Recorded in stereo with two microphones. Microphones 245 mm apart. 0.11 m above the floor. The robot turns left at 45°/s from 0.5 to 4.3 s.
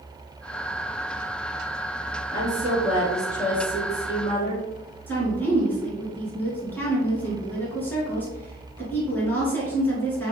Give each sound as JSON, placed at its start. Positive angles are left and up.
{"t": 2.3, "sound": "a woman speaking", "side_deg": -20, "distance_m": 1.9}
{"t": 5.1, "sound": "a woman speaking", "side_deg": 10, "distance_m": 1.3}